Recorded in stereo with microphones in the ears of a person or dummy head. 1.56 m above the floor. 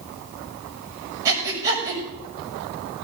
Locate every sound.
1.2 s breathing: 15° right (ahead or behind), 6.5 m